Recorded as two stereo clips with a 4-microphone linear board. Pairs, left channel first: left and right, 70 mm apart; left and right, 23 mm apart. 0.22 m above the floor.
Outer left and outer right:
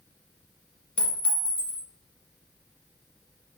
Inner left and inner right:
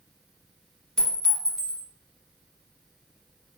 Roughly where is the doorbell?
I don't hear a doorbell.